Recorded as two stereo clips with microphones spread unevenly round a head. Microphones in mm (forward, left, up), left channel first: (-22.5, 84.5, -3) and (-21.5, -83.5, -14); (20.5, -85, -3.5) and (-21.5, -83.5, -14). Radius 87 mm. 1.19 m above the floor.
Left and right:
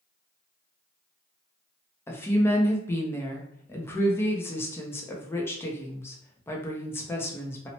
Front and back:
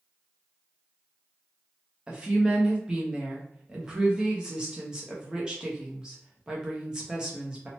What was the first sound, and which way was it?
A woman speaking, 165° left.